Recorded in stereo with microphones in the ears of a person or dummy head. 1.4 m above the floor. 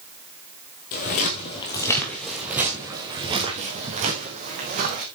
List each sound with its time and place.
0.9 s footsteps: 40° left (ahead or behind), 2 m; by 5.0 s 40° right (ahead or behind), 3.5 m